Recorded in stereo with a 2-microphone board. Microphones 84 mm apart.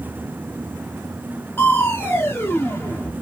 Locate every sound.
1.6 s crushing: 25° left (ahead or behind), 0.7 m